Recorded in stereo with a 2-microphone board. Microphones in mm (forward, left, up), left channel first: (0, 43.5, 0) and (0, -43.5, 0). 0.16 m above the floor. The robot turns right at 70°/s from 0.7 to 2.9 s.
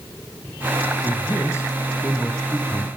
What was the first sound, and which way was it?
A man speaking, 65° left.